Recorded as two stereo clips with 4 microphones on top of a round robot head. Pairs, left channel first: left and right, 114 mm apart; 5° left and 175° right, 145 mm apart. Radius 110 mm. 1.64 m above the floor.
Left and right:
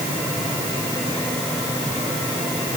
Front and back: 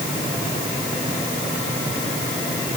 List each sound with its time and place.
Only background noise.